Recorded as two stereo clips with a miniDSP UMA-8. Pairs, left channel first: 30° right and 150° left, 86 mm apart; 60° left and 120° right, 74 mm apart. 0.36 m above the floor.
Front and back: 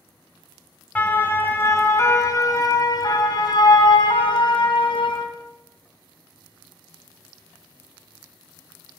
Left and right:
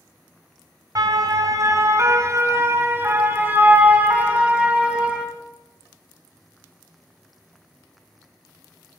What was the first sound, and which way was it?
A siren, 100° right.